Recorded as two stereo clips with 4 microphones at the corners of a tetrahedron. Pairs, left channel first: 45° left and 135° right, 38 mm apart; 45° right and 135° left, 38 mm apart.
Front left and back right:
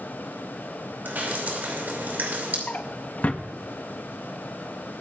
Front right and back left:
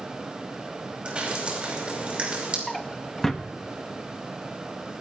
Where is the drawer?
30° left, 0.7 m.